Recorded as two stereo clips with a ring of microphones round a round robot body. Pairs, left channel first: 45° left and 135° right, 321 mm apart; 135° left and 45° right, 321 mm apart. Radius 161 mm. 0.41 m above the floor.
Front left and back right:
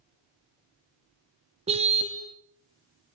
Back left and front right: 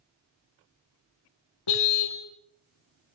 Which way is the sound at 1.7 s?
155° left.